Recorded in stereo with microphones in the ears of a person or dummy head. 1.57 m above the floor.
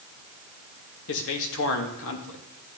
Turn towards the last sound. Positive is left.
turn(degrees=75)  # may be behind; listen again after turning